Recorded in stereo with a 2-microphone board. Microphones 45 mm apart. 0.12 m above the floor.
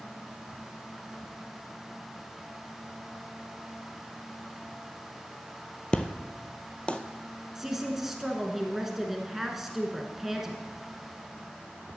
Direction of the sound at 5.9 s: 25° left (ahead or behind).